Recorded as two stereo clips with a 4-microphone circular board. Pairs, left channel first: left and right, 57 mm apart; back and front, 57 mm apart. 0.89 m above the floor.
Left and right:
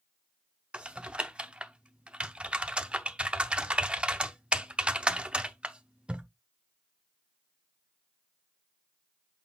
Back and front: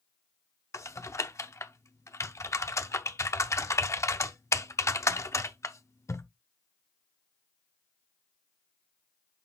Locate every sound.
0.7 s typing on a keyboard: 160° right, 0.7 m